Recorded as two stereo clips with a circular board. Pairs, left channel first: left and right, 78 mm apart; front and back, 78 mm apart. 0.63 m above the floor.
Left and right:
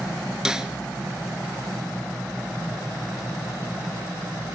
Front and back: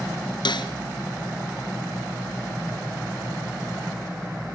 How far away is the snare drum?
About 2 m.